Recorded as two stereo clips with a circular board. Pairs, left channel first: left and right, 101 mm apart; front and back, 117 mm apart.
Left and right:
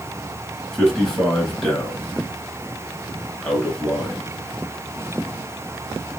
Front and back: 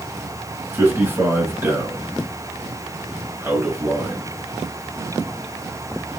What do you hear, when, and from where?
0.7 s a man speaking: 165° left, 1.7 m